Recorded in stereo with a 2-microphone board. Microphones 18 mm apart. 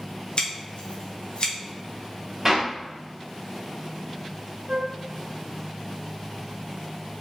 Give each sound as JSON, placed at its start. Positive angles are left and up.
{"t": 0.4, "sound": "scissors", "side_deg": 65, "distance_m": 1.0}
{"t": 2.5, "sound": "a clap", "side_deg": -20, "distance_m": 1.8}
{"t": 4.7, "sound": "a flute", "side_deg": -75, "distance_m": 0.7}